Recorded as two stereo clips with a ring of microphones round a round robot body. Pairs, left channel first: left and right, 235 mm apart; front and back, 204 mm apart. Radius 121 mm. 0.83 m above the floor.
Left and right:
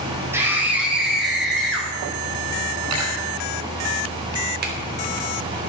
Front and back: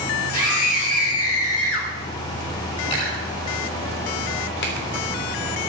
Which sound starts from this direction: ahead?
A scream, at 0.3 s.